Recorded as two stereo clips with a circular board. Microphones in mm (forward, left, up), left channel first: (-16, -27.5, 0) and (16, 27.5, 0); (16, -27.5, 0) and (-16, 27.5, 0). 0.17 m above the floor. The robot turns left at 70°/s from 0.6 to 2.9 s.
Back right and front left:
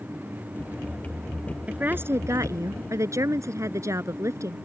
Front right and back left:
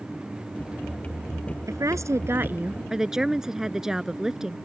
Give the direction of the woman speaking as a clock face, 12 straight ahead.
8 o'clock.